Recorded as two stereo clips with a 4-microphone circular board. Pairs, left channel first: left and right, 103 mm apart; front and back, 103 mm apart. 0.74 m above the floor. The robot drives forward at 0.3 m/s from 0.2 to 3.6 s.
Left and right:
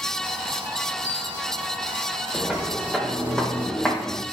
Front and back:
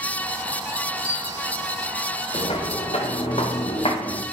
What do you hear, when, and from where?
1.0 s a bell: 165° right, 4.5 m
2.3 s footsteps: 5° right, 3 m; by 4.2 s 15° left, 2.5 m